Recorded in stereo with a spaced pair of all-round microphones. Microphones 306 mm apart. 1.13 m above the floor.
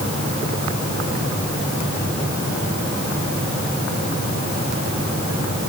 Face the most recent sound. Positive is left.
No sound to turn to.